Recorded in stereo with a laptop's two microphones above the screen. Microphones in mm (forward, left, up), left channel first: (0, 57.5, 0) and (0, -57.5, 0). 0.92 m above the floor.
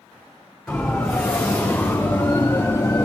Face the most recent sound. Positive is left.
turn(degrees=35)  # may be behind; listen again after turning